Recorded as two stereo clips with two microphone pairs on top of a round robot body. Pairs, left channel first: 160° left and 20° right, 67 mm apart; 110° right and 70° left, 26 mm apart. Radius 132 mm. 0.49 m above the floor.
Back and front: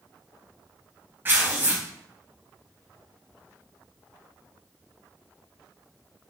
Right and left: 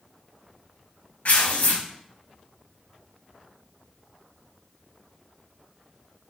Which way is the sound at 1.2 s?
80° right.